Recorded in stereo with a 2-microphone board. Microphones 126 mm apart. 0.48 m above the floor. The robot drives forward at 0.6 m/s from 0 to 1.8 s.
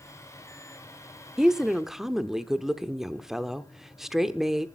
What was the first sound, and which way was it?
A woman speaking, 5° right (ahead or behind).